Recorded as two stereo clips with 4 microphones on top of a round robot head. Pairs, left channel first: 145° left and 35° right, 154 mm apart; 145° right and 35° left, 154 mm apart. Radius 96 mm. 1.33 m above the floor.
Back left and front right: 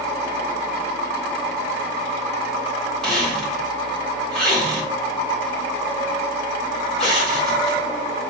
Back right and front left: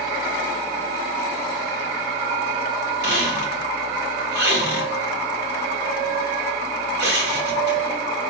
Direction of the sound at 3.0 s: 60° left.